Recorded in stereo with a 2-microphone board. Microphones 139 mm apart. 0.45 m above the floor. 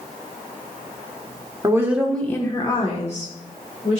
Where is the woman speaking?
25° right (ahead or behind), 0.9 m; by 4.0 s 65° left (ahead or behind), 1.9 m.